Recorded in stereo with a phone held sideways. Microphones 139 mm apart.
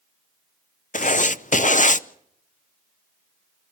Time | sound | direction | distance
0.9 | writing | 65° left (ahead or behind) | 0.6 m